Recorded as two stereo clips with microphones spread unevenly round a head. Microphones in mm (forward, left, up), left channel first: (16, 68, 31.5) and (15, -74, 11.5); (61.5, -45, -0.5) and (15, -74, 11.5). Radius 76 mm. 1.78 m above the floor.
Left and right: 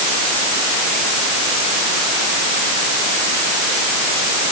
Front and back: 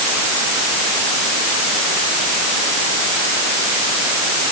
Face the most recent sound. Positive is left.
No sound to turn to.